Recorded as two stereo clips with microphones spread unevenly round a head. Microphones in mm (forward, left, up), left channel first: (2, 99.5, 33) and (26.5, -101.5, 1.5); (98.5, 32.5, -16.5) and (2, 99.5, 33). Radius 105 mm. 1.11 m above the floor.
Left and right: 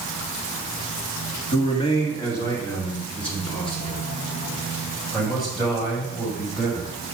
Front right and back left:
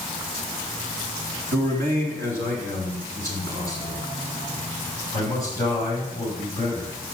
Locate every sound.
1.5 s a man speaking: 165° left, 1.5 m; by 6.9 s 170° right, 5.5 m